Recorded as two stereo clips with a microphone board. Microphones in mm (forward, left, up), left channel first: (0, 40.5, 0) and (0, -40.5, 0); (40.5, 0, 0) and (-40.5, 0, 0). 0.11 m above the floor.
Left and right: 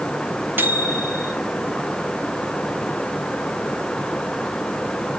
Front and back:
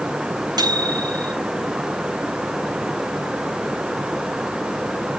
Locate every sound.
0.6 s a microwave: 155° right, 2 m